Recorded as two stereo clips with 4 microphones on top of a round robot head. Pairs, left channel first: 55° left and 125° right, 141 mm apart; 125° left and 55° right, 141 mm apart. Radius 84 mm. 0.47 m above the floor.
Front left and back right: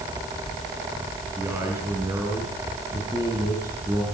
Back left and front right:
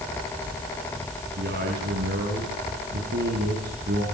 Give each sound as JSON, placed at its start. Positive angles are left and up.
{"t": 1.4, "sound": "a man speaking", "azimuth_deg": -55, "distance_m": 5.5}